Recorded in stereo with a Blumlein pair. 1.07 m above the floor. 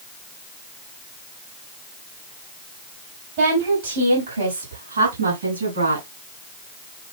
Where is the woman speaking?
50° right, 5.5 m; by 6.0 s 75° right, 8.5 m.